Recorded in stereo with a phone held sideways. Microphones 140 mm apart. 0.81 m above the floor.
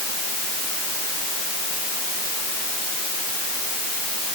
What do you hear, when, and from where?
Only background noise.